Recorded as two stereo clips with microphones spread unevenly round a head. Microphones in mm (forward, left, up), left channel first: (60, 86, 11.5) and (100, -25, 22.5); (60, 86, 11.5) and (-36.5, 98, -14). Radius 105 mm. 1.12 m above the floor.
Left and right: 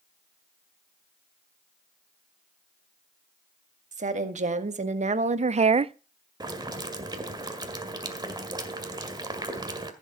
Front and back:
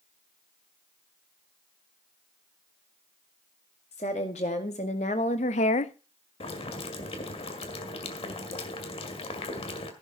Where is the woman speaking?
55° right, 1.9 m; by 5.9 s 25° right, 0.5 m.